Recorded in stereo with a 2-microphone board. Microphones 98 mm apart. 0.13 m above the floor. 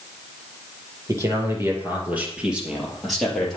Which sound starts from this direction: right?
A man speaking, at 1.1 s.